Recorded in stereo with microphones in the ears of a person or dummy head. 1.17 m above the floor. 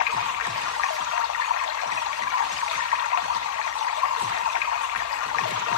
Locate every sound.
0.0 s running water: 75° left (ahead or behind), 1.3 m